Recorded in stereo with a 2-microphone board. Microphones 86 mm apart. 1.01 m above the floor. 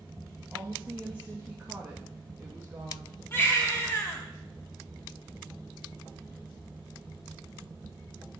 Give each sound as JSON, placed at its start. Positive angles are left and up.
{"t": 0.5, "sound": "a woman speaking", "side_deg": -20, "distance_m": 1.6}
{"t": 3.3, "sound": "a baby crying", "side_deg": 25, "distance_m": 1.6}